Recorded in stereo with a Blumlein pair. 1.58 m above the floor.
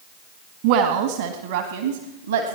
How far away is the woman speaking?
About 1.7 m.